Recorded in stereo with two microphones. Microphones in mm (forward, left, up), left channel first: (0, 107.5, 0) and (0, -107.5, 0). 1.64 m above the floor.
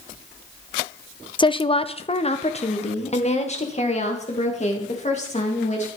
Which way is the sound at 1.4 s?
20° left (ahead or behind).